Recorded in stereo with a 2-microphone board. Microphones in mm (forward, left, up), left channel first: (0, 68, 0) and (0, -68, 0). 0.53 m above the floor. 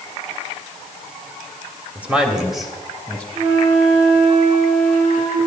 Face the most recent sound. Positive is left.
turn(degrees=-55)  # may be behind; listen again after turning